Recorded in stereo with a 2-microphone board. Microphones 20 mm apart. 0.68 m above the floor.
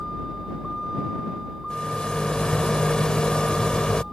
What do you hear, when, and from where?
0.0 s a vehicle: 5° left (ahead or behind)
1.7 s a rattle: 45° left (ahead or behind)